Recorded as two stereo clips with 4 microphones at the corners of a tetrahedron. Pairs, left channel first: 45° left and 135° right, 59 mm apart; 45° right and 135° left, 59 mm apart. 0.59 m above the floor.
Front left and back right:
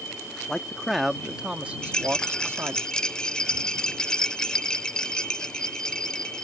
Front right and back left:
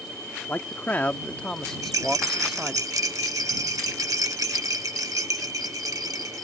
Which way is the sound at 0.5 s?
30° right.